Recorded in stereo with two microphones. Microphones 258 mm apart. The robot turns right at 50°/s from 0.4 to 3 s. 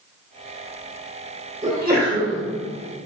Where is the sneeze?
145° right, 1.3 m; by 2.4 s 105° right, 1.3 m.